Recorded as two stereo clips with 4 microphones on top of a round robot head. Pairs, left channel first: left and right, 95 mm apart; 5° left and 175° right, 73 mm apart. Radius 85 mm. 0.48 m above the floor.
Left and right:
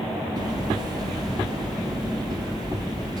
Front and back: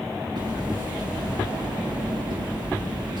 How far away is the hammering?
About 7 m.